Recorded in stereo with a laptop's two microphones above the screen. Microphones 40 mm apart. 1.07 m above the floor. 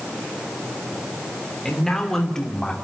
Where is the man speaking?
10° left (ahead or behind), 3 m; by 2.7 s 15° left (ahead or behind), 2.5 m.